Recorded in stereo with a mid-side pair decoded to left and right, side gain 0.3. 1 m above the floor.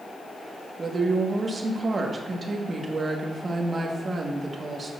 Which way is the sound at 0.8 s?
50° right.